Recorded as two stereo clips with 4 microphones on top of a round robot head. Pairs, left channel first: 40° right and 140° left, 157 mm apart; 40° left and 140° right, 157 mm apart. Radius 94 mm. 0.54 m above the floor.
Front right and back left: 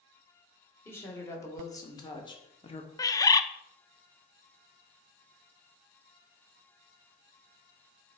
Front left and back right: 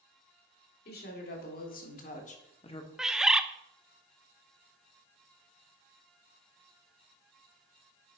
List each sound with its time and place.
0.8 s a woman speaking: 35° left, 2.5 m; by 2.9 s 10° right, 1.3 m
3.0 s a bird: 60° right, 0.6 m